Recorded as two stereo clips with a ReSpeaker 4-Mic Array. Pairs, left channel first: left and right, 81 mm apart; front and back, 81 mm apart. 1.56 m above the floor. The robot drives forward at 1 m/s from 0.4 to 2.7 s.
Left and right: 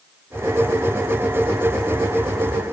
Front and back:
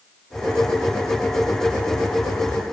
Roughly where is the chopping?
I don't hear chopping.